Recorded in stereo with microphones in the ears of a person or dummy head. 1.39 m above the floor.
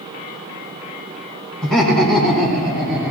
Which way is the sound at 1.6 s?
5° left (ahead or behind).